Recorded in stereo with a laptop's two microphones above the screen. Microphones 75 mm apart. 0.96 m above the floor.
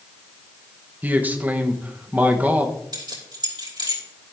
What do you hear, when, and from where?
1.0 s a man speaking: 20° right (ahead or behind), 1.0 m
2.9 s keys jangling: 65° right (ahead or behind), 3 m